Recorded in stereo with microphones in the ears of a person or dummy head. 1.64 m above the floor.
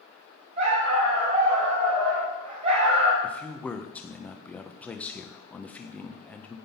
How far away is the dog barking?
About 5.5 m.